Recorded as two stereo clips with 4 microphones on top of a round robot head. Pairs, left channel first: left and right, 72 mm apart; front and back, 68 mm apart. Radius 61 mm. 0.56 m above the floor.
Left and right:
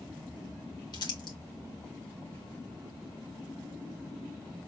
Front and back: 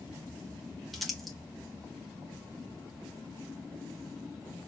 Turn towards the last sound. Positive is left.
turn(degrees=90)